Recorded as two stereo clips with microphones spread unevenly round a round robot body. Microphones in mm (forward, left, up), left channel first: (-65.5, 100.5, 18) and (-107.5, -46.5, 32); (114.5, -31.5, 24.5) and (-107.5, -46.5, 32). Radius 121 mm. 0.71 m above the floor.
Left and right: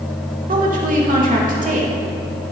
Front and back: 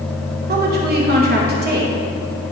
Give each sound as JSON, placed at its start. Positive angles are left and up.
{"t": 0.5, "sound": "a woman speaking", "azimuth_deg": -135, "distance_m": 2.5}